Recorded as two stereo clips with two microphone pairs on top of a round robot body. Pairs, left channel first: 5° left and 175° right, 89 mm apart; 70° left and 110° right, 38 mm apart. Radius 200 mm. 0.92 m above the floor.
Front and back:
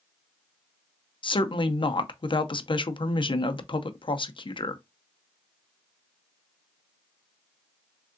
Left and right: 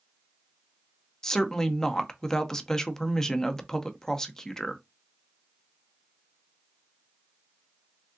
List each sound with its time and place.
1.2 s a woman speaking: 5° right, 0.8 m